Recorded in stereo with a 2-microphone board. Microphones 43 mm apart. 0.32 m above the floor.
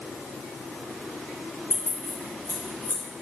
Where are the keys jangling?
80° left, 3.5 m; by 3.0 s 75° left (ahead or behind), 3 m.